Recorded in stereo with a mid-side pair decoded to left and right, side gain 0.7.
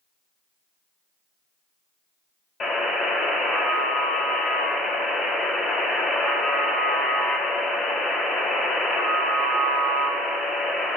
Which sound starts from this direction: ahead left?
A buzzer, at 2.6 s.